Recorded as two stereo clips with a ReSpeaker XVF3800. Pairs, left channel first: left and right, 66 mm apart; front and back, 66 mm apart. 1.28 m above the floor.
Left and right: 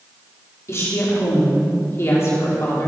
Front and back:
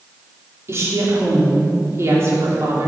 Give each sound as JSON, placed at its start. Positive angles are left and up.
{"t": 0.7, "sound": "a woman speaking", "azimuth_deg": 135, "distance_m": 3.5}